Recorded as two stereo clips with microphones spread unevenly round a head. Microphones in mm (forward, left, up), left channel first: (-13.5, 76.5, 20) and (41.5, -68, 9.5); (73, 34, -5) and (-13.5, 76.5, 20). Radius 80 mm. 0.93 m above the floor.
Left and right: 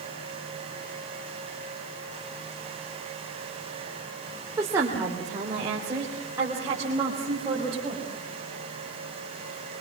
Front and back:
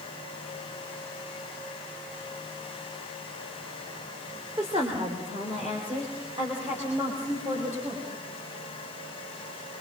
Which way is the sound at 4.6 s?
145° right.